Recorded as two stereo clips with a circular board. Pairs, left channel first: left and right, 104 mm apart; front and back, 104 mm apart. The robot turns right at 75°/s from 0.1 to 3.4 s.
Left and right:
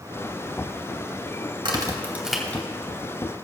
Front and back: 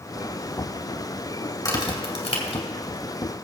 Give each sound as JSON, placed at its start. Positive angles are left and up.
{"t": 1.6, "sound": "a crack", "azimuth_deg": -55, "distance_m": 2.0}